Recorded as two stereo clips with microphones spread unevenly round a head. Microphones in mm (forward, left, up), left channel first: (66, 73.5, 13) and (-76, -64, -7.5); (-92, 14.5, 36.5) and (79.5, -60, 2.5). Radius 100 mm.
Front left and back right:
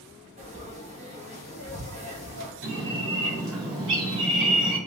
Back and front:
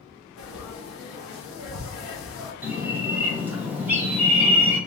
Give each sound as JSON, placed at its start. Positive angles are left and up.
{"t": 0.4, "sound": "frying", "azimuth_deg": 165, "distance_m": 1.0}
{"t": 2.6, "sound": "a bird", "azimuth_deg": -105, "distance_m": 1.2}